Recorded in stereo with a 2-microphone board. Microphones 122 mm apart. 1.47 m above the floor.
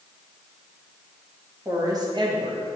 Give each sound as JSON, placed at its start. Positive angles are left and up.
{"t": 1.6, "sound": "a woman speaking", "side_deg": -25, "distance_m": 1.9}